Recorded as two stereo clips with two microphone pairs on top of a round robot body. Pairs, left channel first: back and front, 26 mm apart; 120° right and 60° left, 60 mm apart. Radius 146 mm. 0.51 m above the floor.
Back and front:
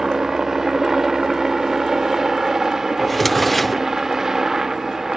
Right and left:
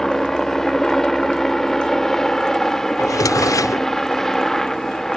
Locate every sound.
0.0 s a helicopter: 45° right
3.0 s a drawer: 95° right